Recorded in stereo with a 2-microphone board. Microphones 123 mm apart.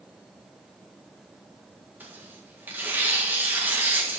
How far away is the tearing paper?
About 1.7 m.